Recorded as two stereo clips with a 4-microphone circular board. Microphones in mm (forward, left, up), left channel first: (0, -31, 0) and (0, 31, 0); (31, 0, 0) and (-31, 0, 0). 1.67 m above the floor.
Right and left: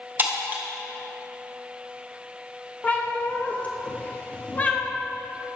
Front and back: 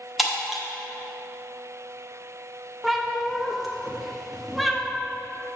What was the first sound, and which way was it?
Breaking glass, 90° left.